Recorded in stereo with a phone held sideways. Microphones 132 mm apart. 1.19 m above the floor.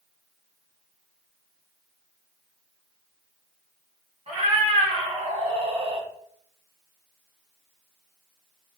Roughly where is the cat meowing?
Right.